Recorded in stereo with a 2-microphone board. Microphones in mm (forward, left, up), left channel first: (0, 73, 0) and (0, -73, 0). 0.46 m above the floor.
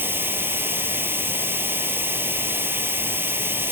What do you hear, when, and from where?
0.0 s running water: 15° right (ahead or behind), 0.9 m